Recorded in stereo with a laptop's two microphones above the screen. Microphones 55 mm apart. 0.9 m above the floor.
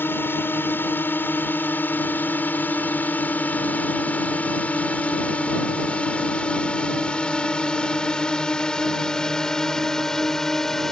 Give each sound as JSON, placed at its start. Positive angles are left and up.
{"t": 0.0, "sound": "a drone", "side_deg": 45}